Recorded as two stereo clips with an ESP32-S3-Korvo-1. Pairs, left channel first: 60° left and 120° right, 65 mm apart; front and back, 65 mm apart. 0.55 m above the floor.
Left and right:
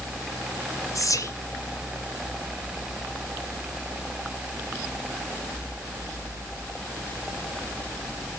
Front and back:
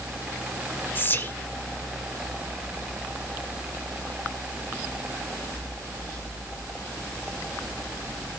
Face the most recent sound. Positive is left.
turn(degrees=50)